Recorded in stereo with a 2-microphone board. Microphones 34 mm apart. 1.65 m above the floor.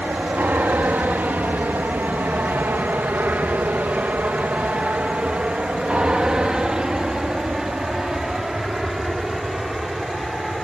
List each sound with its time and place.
0.0 s an aircraft: 60° right (ahead or behind); by 10.7 s 5° right (ahead or behind)